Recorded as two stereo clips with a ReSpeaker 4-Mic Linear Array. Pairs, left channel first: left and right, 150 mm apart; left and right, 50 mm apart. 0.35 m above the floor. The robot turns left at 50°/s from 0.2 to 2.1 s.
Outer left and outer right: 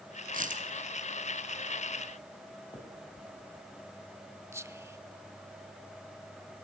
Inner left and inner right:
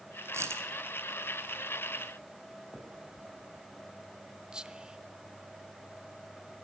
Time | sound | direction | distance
0.3 | a dropped coin | 65° right (ahead or behind) | 1.5 m
2.7 | a finger snap | 35° left (ahead or behind) | 3 m
4.5 | whispering | 15° right (ahead or behind) | 0.8 m